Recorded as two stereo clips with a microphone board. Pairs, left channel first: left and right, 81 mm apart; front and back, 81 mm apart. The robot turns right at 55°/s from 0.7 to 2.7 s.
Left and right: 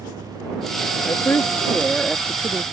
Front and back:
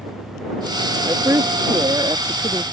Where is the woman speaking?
130° left; by 2.6 s 145° right.